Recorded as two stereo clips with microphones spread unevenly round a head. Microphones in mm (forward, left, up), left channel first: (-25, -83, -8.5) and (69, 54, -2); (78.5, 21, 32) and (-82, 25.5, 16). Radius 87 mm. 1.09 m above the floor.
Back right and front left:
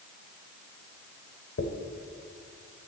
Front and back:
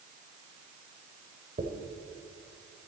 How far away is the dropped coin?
About 1.3 m.